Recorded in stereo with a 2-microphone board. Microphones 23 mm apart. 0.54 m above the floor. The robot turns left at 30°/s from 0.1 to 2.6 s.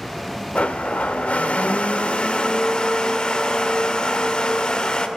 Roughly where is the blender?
Left.